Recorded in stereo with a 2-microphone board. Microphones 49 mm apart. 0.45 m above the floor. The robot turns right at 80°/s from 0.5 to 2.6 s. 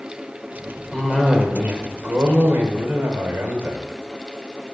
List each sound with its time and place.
0.9 s a cough: 155° left, 1.2 m; by 3.8 s 70° right, 1.2 m